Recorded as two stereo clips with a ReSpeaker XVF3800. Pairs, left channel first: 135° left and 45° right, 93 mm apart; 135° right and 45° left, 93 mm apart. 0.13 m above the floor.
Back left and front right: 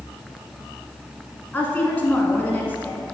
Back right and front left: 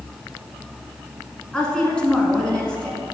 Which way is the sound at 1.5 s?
165° left.